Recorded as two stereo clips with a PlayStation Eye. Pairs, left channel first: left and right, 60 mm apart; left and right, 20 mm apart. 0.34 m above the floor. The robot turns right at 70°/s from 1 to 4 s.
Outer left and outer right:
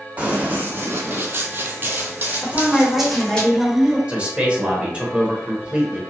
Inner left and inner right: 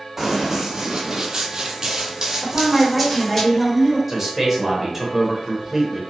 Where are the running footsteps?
25° right (ahead or behind), 1.0 m; by 3.4 s 15° left (ahead or behind), 1.2 m.